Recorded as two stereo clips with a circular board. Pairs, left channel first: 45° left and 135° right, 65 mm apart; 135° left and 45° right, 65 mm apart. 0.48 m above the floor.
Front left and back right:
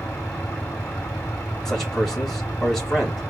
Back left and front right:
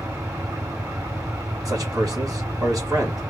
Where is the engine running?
25° right, 3 m.